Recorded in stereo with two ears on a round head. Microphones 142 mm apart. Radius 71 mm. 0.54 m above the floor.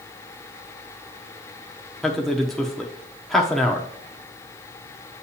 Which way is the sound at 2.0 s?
5° left (ahead or behind).